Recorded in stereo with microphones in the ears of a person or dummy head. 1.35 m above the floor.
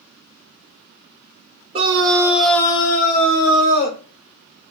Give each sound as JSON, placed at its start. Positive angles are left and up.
{"t": 1.7, "sound": "a scream", "side_deg": -25, "distance_m": 0.9}